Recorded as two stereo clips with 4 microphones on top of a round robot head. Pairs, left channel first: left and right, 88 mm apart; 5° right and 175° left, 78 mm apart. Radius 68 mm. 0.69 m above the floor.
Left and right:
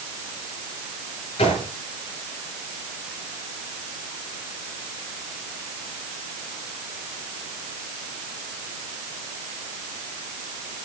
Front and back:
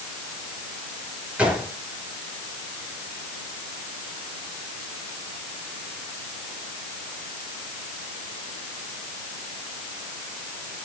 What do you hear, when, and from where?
1.4 s a gunshot: 95° left, 8 m